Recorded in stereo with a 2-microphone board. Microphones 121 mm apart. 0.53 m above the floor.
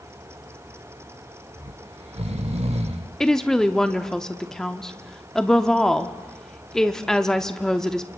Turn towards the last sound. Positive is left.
turn(degrees=5)  # may be behind; listen again after turning